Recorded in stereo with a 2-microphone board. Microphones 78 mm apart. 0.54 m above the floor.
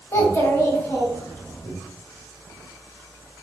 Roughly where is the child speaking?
Left.